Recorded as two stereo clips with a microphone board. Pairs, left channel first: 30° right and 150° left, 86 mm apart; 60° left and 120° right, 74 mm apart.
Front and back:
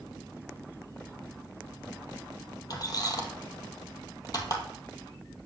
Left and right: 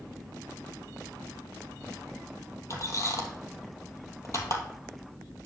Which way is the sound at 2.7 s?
15° left.